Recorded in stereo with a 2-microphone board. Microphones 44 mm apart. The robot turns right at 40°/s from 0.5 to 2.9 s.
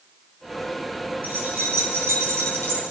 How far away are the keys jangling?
About 4 m.